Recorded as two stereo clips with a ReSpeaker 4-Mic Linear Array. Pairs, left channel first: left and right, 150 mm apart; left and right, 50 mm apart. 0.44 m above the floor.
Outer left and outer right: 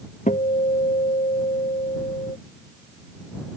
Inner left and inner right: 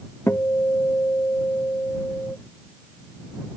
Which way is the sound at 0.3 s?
60° left (ahead or behind).